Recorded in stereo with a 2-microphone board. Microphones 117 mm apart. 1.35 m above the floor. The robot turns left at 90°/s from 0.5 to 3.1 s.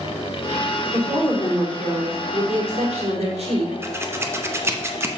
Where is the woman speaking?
85° left, 4 m; by 3.7 s 115° right, 4 m.